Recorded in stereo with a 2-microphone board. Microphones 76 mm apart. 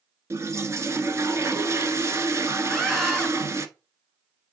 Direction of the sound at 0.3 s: 40° right (ahead or behind).